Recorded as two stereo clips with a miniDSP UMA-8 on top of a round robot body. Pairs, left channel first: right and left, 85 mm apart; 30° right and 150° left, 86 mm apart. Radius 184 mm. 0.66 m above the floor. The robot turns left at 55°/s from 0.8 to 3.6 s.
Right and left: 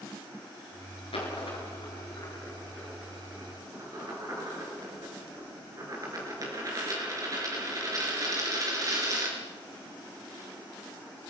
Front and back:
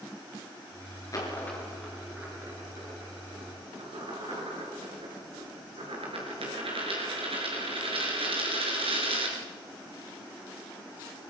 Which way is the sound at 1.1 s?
85° right.